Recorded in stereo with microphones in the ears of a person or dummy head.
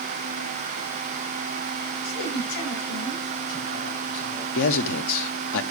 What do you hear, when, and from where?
2.0 s a man speaking: 80° left, 9 m
4.5 s a man speaking: 75° left (ahead or behind), 0.9 m